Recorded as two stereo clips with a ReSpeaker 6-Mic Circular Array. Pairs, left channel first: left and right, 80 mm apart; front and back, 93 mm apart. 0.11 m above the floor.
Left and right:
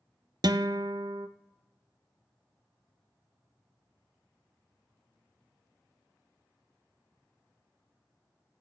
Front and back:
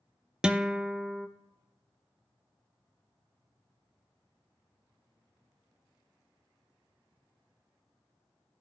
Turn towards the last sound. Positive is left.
turn(degrees=-100)